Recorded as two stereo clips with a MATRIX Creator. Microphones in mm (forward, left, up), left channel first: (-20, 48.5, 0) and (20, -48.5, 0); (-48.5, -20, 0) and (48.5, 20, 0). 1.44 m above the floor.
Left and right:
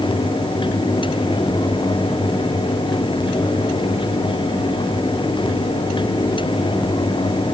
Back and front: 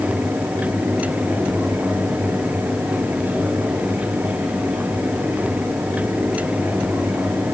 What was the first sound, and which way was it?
Only background noise.